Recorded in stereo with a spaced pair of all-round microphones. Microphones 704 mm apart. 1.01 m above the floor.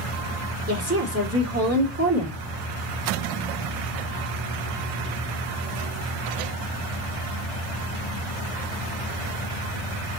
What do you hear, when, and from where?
0.7 s a woman speaking: 20° right (ahead or behind), 2.5 m